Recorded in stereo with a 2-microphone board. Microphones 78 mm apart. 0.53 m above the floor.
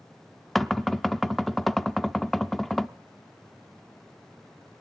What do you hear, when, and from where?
0.6 s knocking: centre (ahead or behind), 0.6 m